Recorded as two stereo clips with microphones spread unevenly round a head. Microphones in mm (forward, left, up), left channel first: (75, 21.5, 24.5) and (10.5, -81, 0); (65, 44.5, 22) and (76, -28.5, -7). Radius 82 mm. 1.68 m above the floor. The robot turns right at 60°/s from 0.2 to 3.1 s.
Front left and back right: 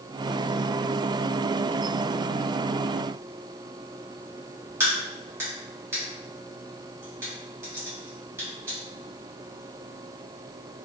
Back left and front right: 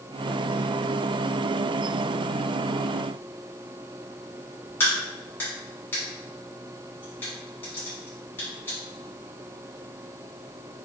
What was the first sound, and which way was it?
A crack, 155° left.